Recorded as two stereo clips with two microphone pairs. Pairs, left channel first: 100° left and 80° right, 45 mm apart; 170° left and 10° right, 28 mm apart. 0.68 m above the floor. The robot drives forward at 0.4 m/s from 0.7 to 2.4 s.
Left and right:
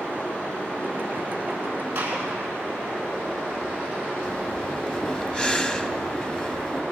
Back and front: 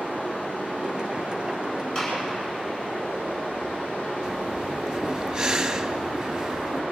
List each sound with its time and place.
0.0 s running water: 165° left, 7.5 m
1.9 s a gunshot: 135° right, 8.5 m; by 2.2 s 140° right, 8.5 m
4.2 s breathing: 50° left, 0.8 m